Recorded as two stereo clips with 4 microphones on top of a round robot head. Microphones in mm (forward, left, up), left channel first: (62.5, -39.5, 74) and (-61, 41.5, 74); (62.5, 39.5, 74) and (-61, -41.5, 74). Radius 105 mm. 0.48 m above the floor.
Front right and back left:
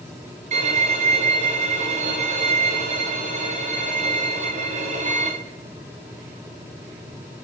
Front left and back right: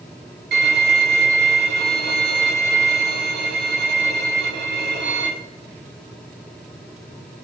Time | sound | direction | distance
0.5 | a violin | 165° right | 1.3 m